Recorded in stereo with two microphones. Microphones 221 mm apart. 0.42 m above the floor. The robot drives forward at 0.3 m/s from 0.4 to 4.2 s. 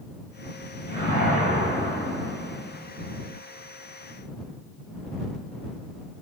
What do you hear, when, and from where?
0.9 s a whoosh: 50° left (ahead or behind), 1.5 m; by 2.7 s 40° left (ahead or behind), 1.9 m